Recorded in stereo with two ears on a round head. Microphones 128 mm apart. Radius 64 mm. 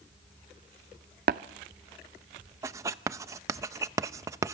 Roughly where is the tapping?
Right.